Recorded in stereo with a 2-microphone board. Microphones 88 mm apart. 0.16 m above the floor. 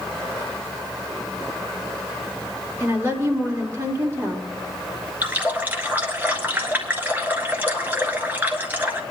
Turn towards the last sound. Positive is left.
turn(degrees=-15)  # may be behind; listen again after turning